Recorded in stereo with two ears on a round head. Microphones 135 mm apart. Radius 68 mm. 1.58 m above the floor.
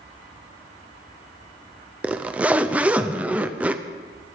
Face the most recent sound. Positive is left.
turn(degrees=-10)  # may be behind; listen again after turning